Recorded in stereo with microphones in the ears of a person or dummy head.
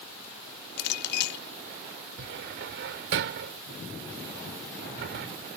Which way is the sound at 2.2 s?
65° right (ahead or behind).